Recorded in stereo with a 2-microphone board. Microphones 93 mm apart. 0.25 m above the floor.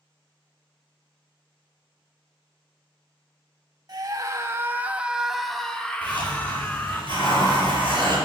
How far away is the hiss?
About 5.5 m.